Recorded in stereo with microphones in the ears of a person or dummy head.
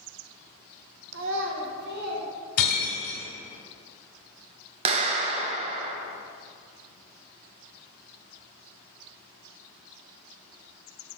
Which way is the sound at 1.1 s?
80° right.